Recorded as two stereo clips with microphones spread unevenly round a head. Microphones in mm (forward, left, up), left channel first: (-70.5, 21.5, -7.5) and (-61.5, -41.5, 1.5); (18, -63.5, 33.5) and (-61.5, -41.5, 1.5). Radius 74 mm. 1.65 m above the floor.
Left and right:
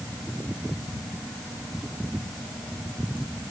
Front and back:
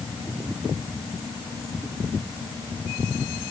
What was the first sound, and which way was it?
Only background noise.